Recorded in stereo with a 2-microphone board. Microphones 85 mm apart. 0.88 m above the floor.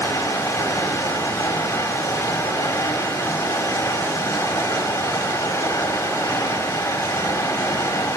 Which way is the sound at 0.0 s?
30° left (ahead or behind).